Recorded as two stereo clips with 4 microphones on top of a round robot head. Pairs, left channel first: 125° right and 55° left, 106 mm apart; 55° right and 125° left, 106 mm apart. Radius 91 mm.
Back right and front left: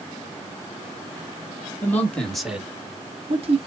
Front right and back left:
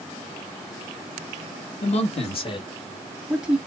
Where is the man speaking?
55° right, 2 m; by 3.6 s 50° left, 1.6 m.